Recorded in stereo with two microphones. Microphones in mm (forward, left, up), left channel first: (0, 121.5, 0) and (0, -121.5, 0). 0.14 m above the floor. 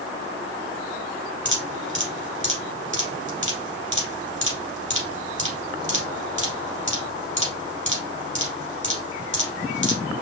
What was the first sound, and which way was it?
Dripping, 50° right (ahead or behind).